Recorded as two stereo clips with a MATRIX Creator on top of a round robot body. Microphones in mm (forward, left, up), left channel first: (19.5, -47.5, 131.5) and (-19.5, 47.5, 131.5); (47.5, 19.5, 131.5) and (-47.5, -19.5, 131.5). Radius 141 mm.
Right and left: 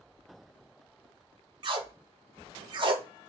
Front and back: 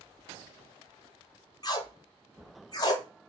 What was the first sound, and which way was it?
Tape being pulled, 70° left.